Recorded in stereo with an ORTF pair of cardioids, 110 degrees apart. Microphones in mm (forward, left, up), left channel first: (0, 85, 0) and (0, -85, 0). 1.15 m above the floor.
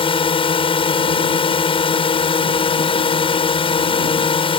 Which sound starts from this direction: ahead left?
A drone, at 0.0 s.